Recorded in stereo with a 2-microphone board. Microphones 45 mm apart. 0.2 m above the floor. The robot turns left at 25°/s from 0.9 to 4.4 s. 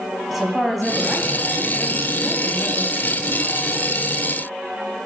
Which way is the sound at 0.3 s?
Centre (ahead or behind).